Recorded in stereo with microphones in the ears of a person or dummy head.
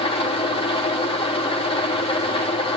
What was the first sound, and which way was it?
An engine running, 30° left (ahead or behind).